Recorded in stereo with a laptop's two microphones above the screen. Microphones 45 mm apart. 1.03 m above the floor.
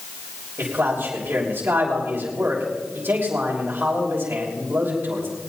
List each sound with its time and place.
0.6 s a man speaking: 60° right (ahead or behind), 3 m